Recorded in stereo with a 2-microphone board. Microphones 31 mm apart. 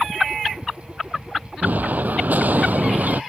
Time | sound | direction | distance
1.6 | an explosion | 70° right (ahead or behind) | ?